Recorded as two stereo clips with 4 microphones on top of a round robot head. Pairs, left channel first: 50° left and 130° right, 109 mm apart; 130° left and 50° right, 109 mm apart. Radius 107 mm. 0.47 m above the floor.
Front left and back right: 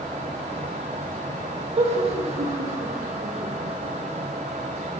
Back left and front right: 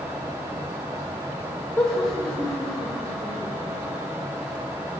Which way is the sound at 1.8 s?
165° right.